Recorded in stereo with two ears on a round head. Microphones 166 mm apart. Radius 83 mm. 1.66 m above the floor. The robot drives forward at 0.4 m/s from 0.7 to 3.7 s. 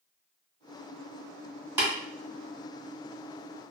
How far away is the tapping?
About 1.8 m.